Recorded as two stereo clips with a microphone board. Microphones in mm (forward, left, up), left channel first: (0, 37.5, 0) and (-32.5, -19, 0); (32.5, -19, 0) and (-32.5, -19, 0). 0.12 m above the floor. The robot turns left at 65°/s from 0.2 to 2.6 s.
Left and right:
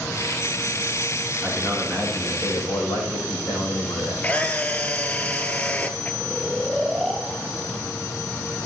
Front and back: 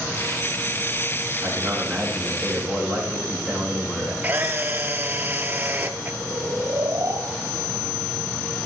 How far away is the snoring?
About 2 m.